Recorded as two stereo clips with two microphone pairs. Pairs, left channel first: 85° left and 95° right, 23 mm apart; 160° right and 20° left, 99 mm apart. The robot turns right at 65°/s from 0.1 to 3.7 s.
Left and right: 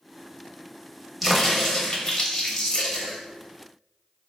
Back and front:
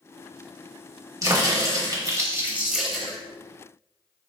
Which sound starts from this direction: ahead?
A crack, at 1.2 s.